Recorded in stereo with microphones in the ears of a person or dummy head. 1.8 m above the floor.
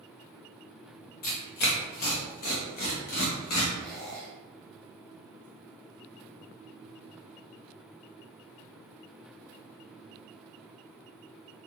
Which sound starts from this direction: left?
Tearing paper, at 1.2 s.